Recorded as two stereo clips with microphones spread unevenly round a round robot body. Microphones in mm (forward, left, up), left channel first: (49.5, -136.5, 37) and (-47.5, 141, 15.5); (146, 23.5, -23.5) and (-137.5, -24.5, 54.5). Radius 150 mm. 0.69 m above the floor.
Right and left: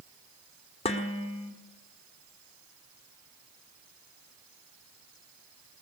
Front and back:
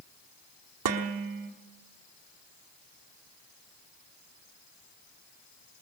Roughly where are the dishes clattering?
Behind right.